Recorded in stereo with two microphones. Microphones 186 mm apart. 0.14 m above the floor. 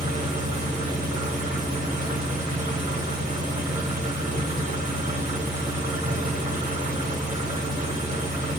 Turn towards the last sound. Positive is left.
turn(degrees=-45)  # may be behind; listen again after turning